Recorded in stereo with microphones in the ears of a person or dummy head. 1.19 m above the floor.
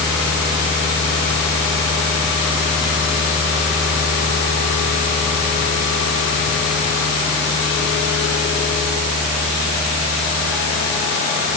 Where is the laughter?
No laughter in this recording.